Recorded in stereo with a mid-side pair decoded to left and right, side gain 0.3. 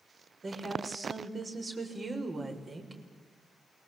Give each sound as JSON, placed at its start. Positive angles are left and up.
{"t": 0.4, "sound": "a woman speaking", "azimuth_deg": -50, "distance_m": 6.5}